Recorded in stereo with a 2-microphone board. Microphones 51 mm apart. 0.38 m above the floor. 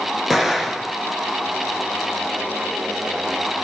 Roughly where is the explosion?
Centre.